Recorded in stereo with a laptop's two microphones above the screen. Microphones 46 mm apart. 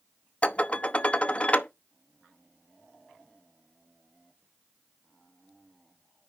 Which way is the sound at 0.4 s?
25° left (ahead or behind).